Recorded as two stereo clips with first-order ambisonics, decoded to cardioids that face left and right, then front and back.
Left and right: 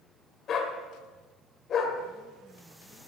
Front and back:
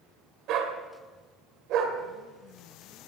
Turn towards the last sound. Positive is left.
turn(degrees=145)